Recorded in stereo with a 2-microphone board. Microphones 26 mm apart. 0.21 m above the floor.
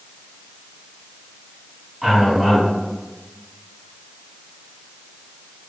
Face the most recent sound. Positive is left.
turn(degrees=0)  # may be behind; listen again after turning